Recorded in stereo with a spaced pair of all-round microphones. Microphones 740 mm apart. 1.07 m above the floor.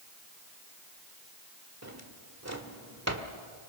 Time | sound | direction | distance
1.8 | a drawer | 20° right (ahead or behind) | 1.6 m